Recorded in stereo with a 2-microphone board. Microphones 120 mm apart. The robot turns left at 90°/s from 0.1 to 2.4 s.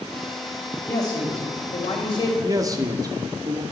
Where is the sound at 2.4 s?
30° right (ahead or behind), 0.8 m.